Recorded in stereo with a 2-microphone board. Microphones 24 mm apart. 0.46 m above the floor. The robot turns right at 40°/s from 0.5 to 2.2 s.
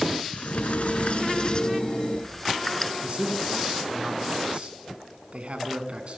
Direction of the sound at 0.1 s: 105° left.